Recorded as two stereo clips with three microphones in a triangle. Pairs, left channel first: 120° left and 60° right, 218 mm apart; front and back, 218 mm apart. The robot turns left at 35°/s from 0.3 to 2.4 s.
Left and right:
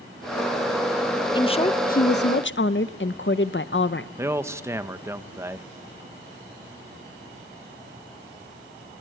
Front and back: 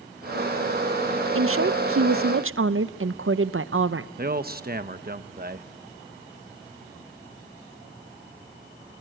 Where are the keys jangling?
I don't hear keys jangling.